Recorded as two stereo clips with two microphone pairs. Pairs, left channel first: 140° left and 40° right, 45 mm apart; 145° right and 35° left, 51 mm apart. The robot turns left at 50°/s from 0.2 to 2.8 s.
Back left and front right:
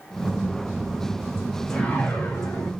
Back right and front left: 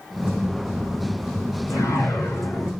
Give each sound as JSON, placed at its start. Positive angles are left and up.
{"t": 1.7, "sound": "a whoosh", "azimuth_deg": -140, "distance_m": 3.5}